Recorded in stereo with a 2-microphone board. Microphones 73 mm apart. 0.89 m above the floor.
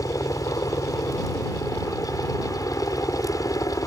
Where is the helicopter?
50° left (ahead or behind).